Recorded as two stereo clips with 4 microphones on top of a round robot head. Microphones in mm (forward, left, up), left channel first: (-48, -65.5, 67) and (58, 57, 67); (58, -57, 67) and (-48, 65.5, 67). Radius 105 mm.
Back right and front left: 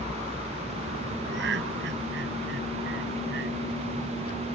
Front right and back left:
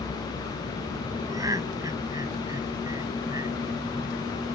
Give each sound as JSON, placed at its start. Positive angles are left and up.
{"t": 1.2, "sound": "laughter", "azimuth_deg": 60}